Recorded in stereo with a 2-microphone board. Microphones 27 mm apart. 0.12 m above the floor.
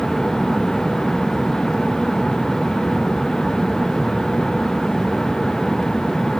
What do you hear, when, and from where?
Only background noise.